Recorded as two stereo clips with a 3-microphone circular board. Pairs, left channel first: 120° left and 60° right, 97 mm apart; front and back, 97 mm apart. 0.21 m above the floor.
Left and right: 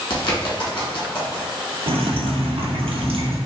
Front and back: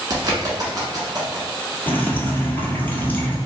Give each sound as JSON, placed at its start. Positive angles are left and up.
{"t": 0.1, "sound": "a bird", "azimuth_deg": 140, "distance_m": 1.1}
{"t": 1.9, "sound": "dripping", "azimuth_deg": -75, "distance_m": 0.9}